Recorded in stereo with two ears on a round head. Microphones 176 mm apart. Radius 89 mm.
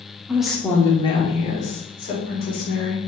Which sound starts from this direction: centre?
A woman speaking, at 0.3 s.